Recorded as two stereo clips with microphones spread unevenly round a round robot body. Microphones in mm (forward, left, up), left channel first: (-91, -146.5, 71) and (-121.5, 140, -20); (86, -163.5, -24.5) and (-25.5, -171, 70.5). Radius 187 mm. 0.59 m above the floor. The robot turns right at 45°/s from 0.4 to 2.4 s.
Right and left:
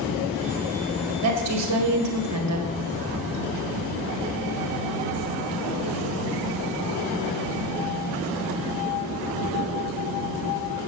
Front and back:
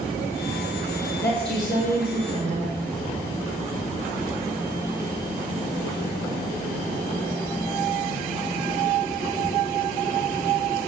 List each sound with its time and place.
1.2 s a woman speaking: 65° left, 2 m; by 2.7 s 115° left, 2 m